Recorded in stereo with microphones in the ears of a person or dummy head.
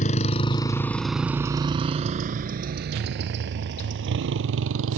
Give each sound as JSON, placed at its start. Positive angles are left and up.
{"t": 0.0, "sound": "a motorcycle", "side_deg": 35}